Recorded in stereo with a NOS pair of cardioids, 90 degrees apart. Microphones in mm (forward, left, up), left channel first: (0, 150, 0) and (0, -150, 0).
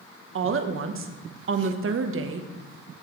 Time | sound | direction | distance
0.3 | a woman speaking | 45° right | 1.1 m